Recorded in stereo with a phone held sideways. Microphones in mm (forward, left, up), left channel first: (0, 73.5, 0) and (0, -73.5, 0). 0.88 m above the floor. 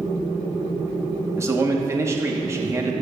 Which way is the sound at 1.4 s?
20° right (ahead or behind).